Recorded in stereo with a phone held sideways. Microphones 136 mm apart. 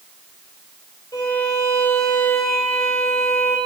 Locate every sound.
1.1 s a violin: 25° left (ahead or behind), 3 m